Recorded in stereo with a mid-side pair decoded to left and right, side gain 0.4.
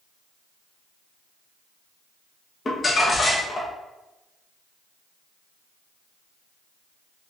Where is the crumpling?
30° left, 1.4 m.